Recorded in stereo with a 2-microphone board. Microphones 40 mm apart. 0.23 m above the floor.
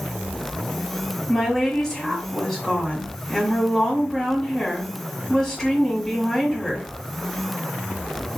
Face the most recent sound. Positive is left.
turn(degrees=10)  # may be behind; listen again after turning